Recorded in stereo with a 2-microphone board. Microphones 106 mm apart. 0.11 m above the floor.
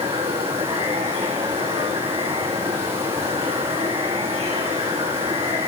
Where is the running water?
75° right (ahead or behind), 6.5 m.